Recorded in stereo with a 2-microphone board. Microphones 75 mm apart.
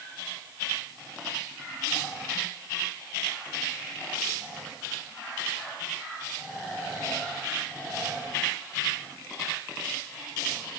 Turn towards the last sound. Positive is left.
No sound to turn to.